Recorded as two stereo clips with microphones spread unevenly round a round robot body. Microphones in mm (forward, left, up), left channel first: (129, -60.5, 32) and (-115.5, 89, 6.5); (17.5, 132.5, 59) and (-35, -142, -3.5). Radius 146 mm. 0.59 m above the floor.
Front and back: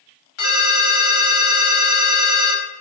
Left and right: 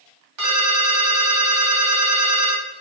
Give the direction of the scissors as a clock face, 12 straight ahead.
No scissors in this recording.